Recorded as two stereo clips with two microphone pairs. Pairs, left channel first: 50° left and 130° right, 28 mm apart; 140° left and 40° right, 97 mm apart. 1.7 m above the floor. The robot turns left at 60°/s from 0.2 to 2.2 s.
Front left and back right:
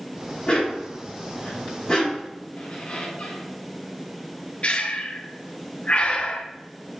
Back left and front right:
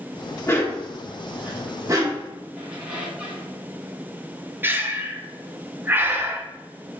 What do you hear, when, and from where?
0.5 s a dog barking: 90° left, 1.6 m; by 2.3 s 15° right, 1.6 m
2.6 s a squeak: 40° left, 1.7 m
4.6 s breathing: 20° left, 0.7 m